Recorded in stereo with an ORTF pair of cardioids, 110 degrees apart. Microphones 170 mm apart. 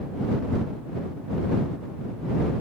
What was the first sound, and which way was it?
Only background noise.